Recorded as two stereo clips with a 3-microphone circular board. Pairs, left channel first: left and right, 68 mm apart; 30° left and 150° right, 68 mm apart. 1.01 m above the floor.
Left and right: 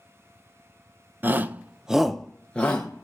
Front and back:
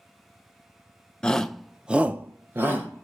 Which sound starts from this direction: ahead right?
A shout, at 1.2 s.